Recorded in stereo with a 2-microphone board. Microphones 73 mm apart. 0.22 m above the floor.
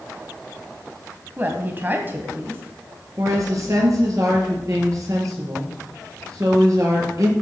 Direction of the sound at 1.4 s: 30° right (ahead or behind).